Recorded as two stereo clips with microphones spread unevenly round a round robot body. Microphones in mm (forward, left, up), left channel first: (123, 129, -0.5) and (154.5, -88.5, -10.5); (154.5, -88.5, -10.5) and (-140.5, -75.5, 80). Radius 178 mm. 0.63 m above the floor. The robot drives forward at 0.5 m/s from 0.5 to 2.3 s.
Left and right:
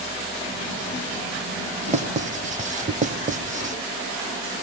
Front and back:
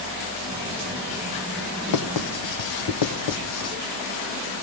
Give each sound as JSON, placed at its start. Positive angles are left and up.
{"t": 1.9, "sound": "writing", "azimuth_deg": -20, "distance_m": 1.9}